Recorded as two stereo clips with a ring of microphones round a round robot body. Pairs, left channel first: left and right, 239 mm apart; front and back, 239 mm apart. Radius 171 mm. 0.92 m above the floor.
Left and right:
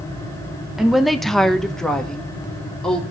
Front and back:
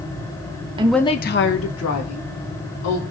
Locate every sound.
0.8 s a woman speaking: 175° right, 0.6 m; by 3.0 s 5° left, 3 m